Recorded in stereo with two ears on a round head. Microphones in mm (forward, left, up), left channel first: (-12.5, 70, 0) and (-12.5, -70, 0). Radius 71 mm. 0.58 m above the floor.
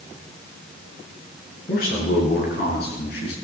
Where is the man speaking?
55° left (ahead or behind), 7.5 m; by 3.3 s 65° left (ahead or behind), 6.5 m.